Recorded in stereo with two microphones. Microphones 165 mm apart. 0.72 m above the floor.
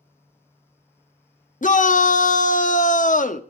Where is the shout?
50° left (ahead or behind), 0.9 m.